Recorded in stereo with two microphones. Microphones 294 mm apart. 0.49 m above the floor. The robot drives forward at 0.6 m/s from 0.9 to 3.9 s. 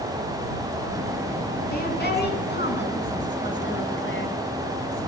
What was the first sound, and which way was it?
A woman speaking, 35° left (ahead or behind).